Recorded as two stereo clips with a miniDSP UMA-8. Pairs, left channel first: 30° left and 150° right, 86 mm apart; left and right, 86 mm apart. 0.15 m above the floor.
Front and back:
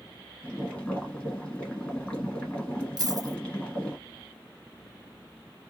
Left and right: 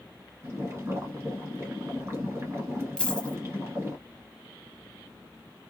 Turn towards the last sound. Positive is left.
turn(degrees=170)